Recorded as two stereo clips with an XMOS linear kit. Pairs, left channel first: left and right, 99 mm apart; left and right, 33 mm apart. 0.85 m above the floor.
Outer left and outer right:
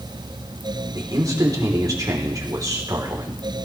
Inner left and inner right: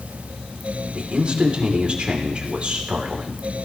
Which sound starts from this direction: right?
A man speaking, at 0.9 s.